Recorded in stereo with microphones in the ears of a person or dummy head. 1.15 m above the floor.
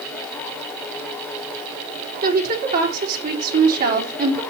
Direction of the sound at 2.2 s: 55° right (ahead or behind).